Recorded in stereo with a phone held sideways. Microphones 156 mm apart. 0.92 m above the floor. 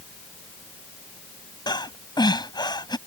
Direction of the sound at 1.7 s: 30° left (ahead or behind).